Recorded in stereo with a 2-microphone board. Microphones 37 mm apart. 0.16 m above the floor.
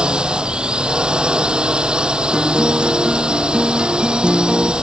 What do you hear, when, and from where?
0.0 s a drone: 25° right (ahead or behind)
2.3 s a guitar: 25° right (ahead or behind)